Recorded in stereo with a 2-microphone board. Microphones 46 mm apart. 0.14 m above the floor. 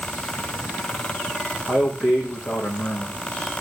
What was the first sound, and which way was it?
A man speaking, 15° left (ahead or behind).